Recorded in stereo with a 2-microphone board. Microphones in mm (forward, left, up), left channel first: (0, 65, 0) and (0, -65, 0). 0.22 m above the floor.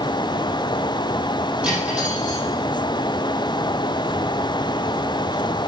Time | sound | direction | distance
1.6 | cutlery clinking | 10° right (ahead or behind) | 5.5 m